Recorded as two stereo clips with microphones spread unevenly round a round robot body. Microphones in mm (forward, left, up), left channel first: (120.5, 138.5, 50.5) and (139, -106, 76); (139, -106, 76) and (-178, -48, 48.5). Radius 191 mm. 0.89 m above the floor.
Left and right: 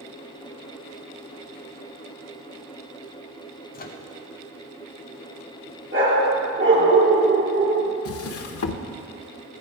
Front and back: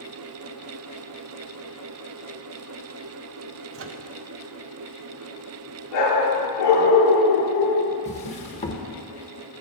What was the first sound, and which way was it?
A microwave, 135° left.